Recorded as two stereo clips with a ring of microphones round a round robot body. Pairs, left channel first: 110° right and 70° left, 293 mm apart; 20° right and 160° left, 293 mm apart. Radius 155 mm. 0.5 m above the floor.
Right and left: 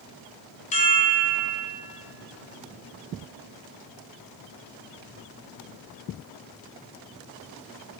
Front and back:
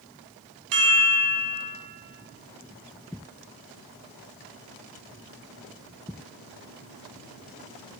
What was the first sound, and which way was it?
A chime, straight behind.